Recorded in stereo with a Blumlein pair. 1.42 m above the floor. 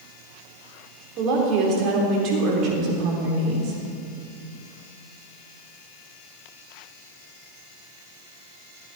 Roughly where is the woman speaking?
Ahead right.